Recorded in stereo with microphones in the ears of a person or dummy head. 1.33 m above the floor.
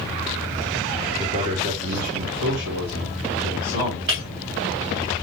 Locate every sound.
1.2 s a man speaking: 35° right (ahead or behind), 1.3 m; by 4.0 s 80° right, 3 m
4.1 s breaking glass: 65° right (ahead or behind), 2.5 m